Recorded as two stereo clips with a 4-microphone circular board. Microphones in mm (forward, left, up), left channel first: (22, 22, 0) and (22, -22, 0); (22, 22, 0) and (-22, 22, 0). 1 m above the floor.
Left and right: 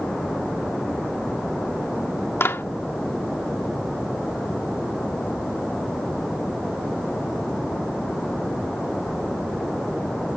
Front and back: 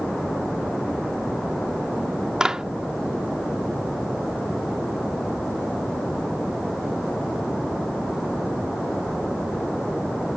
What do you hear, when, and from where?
2.4 s a clap: 105° left